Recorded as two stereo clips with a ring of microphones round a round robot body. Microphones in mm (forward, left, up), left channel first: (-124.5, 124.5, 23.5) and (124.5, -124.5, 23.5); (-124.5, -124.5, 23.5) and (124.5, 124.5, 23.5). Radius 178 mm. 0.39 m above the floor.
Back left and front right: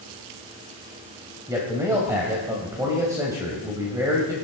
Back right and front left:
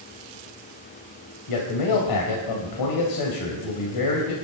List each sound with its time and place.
1.5 s a man speaking: 125° right, 2.5 m